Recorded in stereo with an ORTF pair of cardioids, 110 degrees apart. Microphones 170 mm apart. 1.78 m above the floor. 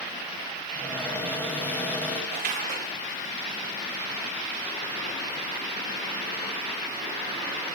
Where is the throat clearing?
No throat clearing in this recording.